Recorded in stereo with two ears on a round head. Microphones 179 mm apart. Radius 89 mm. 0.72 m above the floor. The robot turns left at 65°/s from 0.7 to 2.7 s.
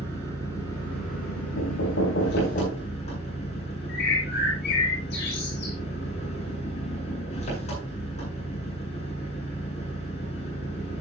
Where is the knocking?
105° left, 5 m; by 2.9 s 30° left, 5 m.